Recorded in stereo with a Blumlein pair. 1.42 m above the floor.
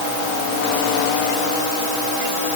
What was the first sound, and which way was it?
Only background noise.